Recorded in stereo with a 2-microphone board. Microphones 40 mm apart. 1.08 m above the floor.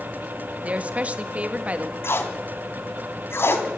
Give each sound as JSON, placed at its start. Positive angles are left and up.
{"t": 0.6, "sound": "a woman speaking", "side_deg": -30, "distance_m": 1.8}
{"t": 2.0, "sound": "tape being pulled", "side_deg": 70, "distance_m": 2.5}